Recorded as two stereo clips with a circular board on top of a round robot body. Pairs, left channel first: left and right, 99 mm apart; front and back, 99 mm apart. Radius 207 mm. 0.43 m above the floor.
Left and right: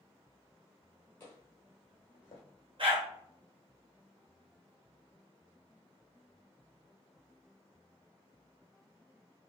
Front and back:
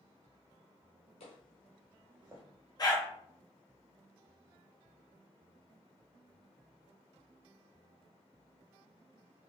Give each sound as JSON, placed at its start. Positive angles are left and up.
{"t": 1.2, "sound": "footsteps", "azimuth_deg": 20, "distance_m": 1.1}
{"t": 2.8, "sound": "a dog barking", "azimuth_deg": -50, "distance_m": 1.2}